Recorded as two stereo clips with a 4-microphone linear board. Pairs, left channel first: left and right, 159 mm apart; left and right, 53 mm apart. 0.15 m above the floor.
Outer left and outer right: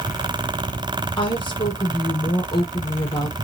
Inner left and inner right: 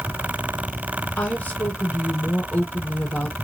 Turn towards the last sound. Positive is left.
turn(degrees=30)  # may be behind; listen again after turning